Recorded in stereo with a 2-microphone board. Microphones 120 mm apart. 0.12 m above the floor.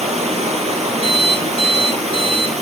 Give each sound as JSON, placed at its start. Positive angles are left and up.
{"t": 0.0, "sound": "running water", "side_deg": -65, "distance_m": 1.4}
{"t": 1.0, "sound": "an alarm clock", "side_deg": -45, "distance_m": 1.2}